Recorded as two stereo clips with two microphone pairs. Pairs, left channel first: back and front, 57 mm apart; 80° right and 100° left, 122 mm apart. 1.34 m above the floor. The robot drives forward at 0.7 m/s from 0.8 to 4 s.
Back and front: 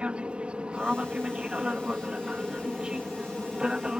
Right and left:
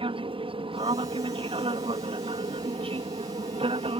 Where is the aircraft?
70° left; by 4.0 s 75° left.